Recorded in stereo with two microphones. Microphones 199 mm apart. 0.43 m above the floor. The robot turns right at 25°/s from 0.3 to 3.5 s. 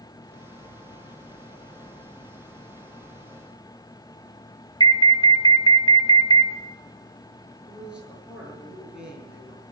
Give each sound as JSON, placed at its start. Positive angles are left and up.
{"t": 4.8, "sound": "an alarm", "side_deg": 20, "distance_m": 0.9}
{"t": 7.6, "sound": "a man speaking", "side_deg": -5, "distance_m": 8.0}